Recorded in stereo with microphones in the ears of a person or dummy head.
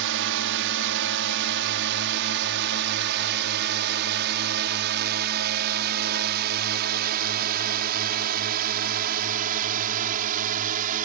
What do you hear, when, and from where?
0.0 s a drone: 65° right (ahead or behind); by 11.1 s 45° right (ahead or behind)